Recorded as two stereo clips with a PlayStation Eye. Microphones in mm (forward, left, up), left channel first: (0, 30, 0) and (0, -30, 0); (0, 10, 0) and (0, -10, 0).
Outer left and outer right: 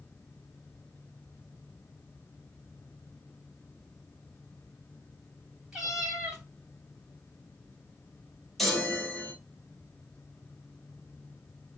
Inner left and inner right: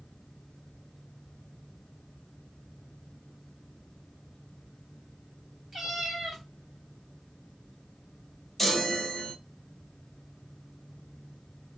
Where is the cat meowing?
10° right (ahead or behind), 1.5 m.